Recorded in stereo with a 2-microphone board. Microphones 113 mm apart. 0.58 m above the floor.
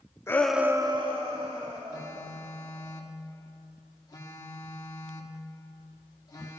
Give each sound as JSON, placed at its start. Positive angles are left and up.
{"t": 0.3, "sound": "a shout", "side_deg": 20, "distance_m": 0.7}
{"t": 1.9, "sound": "a phone buzzing", "side_deg": 30, "distance_m": 1.2}